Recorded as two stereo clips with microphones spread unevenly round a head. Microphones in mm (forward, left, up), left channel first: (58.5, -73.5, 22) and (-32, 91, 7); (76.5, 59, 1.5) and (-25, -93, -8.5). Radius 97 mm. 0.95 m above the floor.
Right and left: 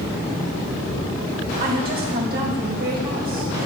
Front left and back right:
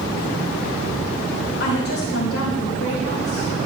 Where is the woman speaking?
80° left, 4.5 m.